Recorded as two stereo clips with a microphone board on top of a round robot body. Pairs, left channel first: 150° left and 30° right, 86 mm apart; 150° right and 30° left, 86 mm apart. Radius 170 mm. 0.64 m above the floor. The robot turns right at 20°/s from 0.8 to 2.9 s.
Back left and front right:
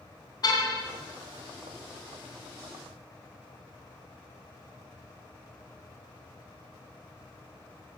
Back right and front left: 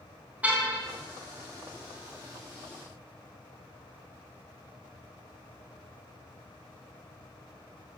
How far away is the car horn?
About 3.5 m.